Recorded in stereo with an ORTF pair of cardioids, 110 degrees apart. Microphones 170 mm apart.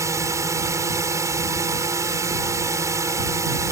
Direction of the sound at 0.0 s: 15° right.